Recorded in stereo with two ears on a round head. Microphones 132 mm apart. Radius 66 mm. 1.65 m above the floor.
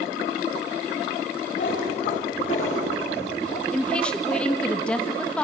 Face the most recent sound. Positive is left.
turn(degrees=5)  # may be behind; listen again after turning